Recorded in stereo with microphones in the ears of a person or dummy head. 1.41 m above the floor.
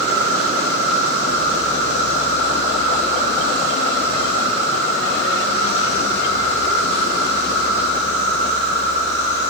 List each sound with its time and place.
0.0 s an insect: 55° right (ahead or behind), 9.5 m